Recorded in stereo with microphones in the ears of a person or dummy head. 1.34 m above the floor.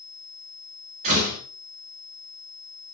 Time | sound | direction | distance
1.0 | a door slam | 35° right (ahead or behind) | 3 m